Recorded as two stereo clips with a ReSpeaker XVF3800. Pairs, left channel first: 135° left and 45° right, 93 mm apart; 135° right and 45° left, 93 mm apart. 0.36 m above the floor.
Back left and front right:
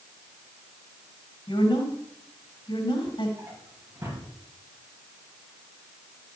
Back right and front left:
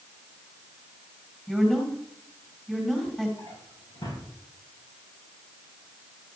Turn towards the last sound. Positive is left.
turn(degrees=-100)